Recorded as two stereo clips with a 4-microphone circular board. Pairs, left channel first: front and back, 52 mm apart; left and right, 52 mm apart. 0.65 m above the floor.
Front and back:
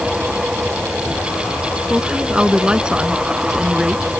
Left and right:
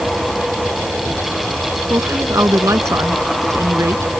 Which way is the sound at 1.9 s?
105° right.